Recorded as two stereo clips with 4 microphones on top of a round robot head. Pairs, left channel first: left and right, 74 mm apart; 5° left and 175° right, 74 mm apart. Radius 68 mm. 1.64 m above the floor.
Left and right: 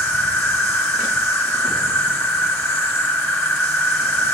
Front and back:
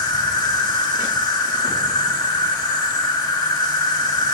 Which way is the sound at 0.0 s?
30° left.